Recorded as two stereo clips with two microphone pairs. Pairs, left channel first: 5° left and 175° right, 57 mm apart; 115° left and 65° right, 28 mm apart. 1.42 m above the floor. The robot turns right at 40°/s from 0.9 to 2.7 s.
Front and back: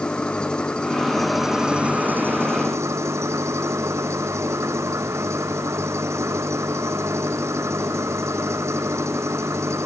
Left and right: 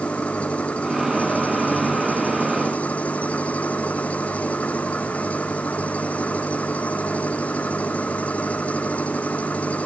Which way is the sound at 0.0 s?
80° left.